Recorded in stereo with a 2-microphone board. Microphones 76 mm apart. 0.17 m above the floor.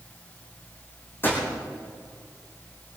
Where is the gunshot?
30° left (ahead or behind), 4 m.